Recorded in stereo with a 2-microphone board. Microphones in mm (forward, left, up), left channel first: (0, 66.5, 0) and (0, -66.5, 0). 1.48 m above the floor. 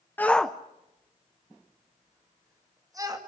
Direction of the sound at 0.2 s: 15° left (ahead or behind).